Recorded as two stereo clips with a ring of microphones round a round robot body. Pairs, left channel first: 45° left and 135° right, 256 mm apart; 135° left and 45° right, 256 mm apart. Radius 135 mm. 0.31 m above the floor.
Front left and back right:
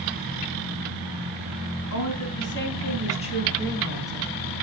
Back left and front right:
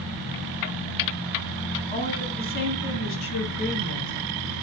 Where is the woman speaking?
70° left, 3.5 m; by 4.3 s 140° left, 3.5 m.